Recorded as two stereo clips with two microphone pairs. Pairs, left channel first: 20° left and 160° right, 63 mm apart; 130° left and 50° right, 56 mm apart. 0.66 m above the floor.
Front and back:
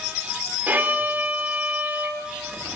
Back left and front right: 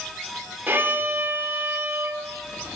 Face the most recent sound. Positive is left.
turn(degrees=-105)